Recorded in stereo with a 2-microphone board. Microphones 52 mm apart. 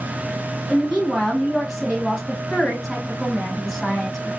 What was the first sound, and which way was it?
A woman speaking, 5° right (ahead or behind).